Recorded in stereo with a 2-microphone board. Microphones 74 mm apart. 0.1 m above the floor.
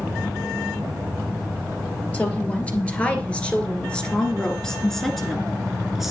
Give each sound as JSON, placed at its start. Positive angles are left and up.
{"t": 2.1, "sound": "a woman speaking", "side_deg": 20, "distance_m": 2.5}